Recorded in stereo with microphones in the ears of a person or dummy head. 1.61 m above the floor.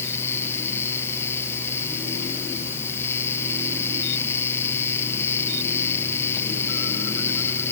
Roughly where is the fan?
Centre.